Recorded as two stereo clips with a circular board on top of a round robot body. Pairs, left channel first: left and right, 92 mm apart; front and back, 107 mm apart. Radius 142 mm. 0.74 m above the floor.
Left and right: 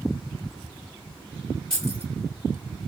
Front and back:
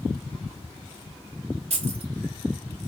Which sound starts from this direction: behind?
Keys jangling, at 1.7 s.